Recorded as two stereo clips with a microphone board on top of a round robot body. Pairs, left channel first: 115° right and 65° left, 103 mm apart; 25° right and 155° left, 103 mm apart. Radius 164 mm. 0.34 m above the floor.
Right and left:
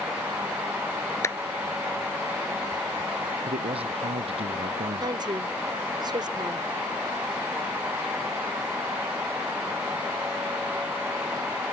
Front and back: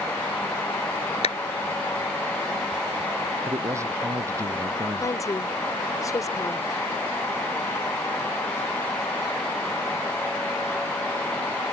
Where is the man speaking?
95° left.